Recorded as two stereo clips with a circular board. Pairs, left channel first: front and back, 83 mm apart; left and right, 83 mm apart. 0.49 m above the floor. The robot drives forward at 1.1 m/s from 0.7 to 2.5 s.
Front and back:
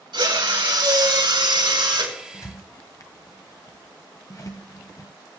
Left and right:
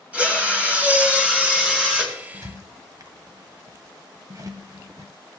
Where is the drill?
160° right, 3.5 m; by 2.1 s 170° right, 4.5 m.